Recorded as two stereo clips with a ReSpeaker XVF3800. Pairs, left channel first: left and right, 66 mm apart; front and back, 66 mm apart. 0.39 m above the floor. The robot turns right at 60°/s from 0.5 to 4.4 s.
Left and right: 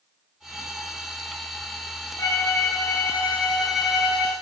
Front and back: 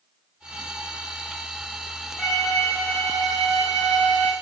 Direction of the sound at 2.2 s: 90° left.